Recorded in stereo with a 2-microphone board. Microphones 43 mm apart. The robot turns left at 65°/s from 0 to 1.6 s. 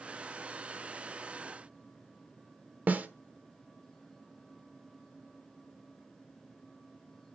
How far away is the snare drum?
About 0.9 m.